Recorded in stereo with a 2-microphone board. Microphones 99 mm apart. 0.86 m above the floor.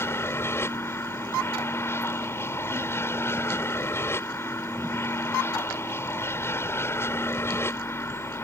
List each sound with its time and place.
0.0 s an aircraft: 25° left (ahead or behind)